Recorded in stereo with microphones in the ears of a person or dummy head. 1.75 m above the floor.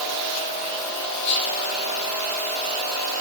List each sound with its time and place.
1.2 s whispering: 30° left (ahead or behind), 1.0 m